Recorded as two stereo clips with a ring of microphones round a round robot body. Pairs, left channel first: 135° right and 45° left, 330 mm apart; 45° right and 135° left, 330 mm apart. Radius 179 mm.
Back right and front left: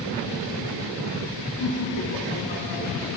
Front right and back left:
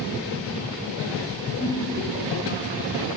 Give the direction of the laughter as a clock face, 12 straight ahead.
5 o'clock.